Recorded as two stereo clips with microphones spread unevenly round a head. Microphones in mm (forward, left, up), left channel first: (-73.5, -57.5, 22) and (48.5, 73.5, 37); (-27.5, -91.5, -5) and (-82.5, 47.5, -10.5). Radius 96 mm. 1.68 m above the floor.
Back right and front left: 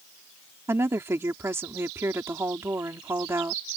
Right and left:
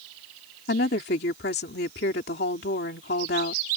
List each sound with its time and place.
0.7 s a woman speaking: 30° right